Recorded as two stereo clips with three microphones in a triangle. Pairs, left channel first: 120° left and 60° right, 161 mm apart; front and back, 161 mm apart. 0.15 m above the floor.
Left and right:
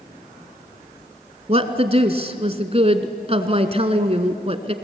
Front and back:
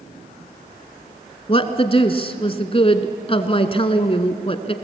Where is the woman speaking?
35° right, 1.4 m.